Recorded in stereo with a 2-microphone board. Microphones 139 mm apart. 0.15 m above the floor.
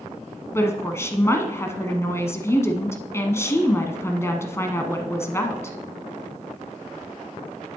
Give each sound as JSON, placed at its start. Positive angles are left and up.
{"t": 0.5, "sound": "a woman speaking", "side_deg": 20, "distance_m": 1.0}